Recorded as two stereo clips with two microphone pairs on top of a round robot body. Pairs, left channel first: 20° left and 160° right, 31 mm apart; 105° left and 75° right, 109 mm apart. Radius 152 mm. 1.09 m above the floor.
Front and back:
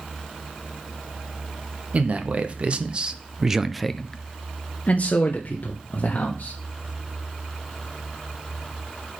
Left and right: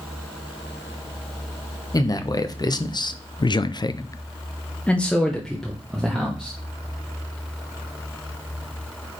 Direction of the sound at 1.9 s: 160° left.